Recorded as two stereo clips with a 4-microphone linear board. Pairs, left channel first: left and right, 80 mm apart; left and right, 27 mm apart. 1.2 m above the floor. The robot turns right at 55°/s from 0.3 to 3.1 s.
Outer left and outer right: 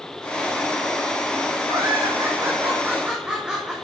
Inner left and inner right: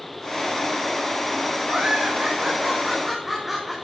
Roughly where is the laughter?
Right.